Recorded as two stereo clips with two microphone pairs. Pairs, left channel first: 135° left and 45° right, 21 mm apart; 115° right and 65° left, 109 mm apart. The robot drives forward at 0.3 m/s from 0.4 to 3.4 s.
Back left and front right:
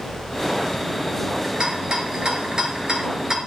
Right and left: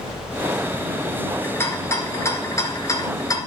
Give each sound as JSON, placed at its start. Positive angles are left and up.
{"t": 1.4, "sound": "a rattle", "azimuth_deg": -55, "distance_m": 2.0}